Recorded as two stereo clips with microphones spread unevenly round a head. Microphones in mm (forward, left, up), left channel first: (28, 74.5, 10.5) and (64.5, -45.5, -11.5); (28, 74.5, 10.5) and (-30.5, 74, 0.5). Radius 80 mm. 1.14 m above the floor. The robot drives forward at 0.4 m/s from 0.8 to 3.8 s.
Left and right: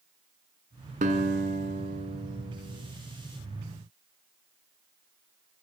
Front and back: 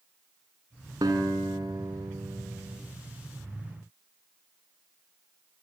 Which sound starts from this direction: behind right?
A guitar, at 1.0 s.